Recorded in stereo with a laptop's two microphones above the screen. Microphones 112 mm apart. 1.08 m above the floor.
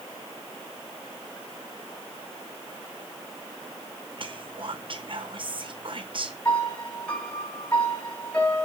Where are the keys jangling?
No keys jangling in this recording.